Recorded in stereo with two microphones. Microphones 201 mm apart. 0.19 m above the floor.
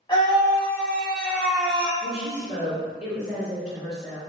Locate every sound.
0.1 s a scream: 25° left (ahead or behind), 1.3 m; by 1.9 s 5° right (ahead or behind), 1.5 m
2.0 s a woman speaking: 35° right (ahead or behind), 1.8 m